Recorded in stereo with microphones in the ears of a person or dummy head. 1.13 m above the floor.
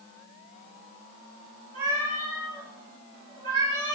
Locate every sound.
1.7 s a cat meowing: 45° right (ahead or behind), 3 m